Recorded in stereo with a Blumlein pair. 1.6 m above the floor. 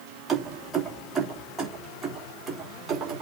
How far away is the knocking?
No knocking in this recording.